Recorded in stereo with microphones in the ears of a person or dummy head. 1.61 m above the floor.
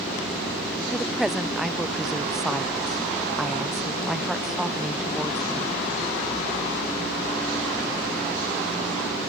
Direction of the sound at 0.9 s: Centre (ahead or behind).